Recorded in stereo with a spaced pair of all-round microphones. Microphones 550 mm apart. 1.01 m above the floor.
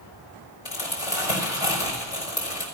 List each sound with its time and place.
0.7 s crumpling: 70° left (ahead or behind), 4.5 m